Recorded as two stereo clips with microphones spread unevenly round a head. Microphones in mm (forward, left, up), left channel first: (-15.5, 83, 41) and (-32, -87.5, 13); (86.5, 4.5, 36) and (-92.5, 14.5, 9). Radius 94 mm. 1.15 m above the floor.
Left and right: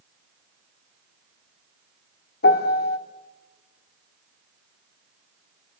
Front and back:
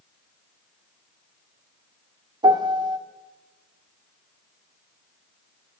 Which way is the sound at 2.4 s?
105° left.